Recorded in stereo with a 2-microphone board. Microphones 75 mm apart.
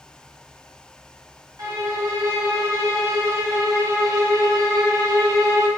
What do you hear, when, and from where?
1.6 s a violin: 55° right (ahead or behind), 1.7 m